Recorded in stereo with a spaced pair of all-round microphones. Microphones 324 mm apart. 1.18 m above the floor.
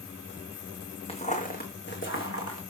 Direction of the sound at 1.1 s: 15° left (ahead or behind).